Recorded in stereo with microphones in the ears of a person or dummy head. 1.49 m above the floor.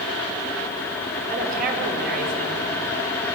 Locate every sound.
1.3 s a woman speaking: 50° right (ahead or behind), 6 m